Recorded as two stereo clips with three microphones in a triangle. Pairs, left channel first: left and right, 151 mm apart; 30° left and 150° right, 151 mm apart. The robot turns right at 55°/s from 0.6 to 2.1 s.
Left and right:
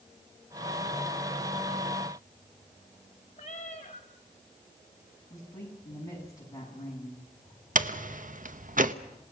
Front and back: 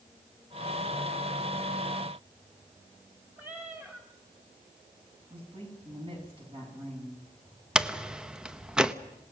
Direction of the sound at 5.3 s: 160° left.